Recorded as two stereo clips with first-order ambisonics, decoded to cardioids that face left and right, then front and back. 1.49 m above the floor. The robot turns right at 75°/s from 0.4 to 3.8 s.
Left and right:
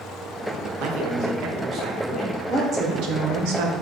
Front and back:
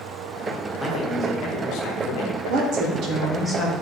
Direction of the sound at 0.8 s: 90° right.